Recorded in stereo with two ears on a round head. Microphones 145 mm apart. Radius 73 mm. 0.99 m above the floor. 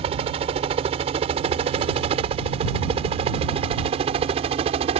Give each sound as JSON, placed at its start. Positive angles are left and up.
{"t": 0.0, "sound": "a helicopter", "side_deg": -35}